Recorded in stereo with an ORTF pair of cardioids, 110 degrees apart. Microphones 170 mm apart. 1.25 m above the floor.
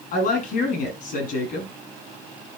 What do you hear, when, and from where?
0.1 s a woman speaking: 60° left, 8.5 m